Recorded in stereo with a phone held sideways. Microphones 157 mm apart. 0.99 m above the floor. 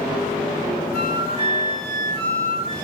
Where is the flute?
40° right (ahead or behind), 1.5 m.